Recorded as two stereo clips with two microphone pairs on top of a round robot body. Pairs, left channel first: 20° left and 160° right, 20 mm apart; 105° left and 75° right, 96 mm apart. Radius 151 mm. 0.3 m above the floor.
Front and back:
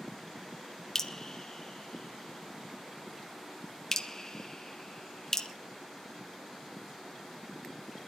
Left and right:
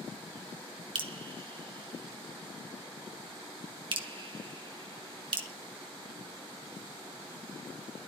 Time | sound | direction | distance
0.9 | dripping | 40° right | 2.0 m